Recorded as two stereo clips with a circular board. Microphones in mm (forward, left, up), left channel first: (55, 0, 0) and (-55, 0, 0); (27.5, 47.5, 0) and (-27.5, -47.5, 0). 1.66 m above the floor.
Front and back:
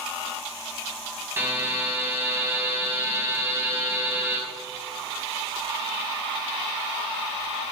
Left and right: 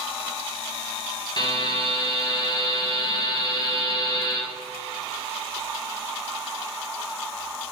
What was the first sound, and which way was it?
A buzzer, 115° left.